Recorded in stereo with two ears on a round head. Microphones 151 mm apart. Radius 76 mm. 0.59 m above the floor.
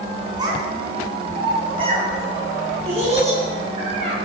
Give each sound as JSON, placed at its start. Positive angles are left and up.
{"t": 0.4, "sound": "a child speaking", "side_deg": -25, "distance_m": 5.0}